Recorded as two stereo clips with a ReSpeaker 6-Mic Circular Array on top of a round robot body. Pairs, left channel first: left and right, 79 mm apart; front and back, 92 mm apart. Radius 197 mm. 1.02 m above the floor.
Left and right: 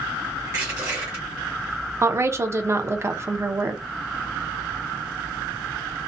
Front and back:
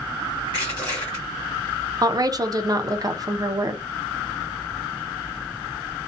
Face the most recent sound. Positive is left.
turn(degrees=-140)